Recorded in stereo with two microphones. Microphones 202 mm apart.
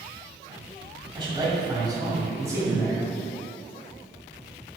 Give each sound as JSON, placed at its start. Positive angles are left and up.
{"t": 1.1, "sound": "a man speaking", "side_deg": -25, "distance_m": 1.6}